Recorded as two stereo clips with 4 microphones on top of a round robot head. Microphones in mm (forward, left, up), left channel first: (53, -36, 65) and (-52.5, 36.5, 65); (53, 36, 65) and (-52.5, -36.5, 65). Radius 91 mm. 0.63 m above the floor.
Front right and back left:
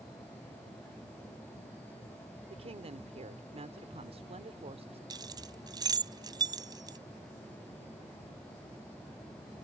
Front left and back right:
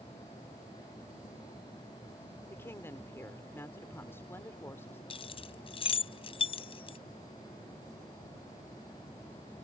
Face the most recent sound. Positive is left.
turn(degrees=85)